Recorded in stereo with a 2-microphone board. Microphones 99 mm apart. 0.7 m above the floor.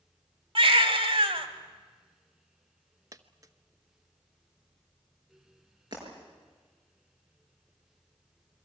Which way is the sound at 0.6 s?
60° right (ahead or behind).